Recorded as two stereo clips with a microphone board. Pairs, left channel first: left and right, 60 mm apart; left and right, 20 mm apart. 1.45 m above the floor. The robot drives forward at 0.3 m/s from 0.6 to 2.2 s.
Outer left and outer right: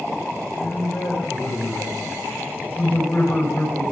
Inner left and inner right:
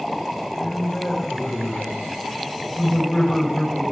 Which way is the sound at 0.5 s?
45° left (ahead or behind).